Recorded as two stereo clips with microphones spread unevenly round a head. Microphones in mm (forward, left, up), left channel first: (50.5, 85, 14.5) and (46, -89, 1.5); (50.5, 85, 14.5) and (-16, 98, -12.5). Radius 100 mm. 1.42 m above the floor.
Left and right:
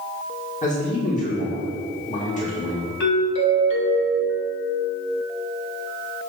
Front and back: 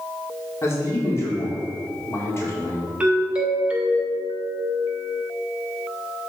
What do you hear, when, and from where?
0.6 s a man speaking: 40° left, 2.5 m
3.0 s a doorbell: 105° left, 1.8 m